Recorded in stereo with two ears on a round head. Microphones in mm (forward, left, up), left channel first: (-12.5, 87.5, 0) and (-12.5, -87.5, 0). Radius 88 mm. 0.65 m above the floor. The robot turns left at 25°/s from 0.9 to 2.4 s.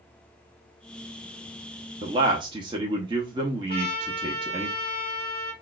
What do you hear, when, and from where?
2.0 s a man speaking: 25° right (ahead or behind), 0.6 m
3.7 s a trumpet: 35° right (ahead or behind), 3 m